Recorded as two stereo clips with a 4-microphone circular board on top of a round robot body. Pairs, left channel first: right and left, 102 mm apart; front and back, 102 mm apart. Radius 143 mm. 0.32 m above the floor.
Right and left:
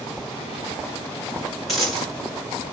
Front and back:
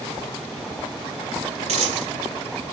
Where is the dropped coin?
Straight behind, 2.5 m.